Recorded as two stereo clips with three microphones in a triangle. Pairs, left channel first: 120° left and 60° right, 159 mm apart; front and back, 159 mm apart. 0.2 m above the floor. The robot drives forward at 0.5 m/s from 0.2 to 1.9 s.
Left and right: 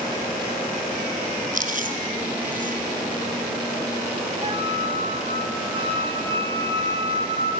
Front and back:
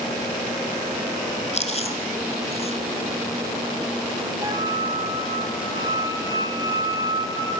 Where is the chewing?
40° right, 2.0 m.